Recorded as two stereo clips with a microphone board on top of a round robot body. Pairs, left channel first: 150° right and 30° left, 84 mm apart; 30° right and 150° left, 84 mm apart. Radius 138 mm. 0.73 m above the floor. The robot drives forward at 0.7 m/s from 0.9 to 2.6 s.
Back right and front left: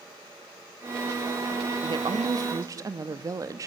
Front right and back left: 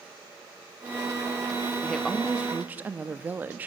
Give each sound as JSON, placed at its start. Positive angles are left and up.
{"t": 1.8, "sound": "a woman speaking", "azimuth_deg": 55, "distance_m": 1.2}